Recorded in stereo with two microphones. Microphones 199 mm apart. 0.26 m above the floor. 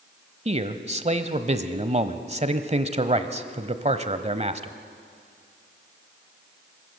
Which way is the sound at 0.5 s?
35° right (ahead or behind).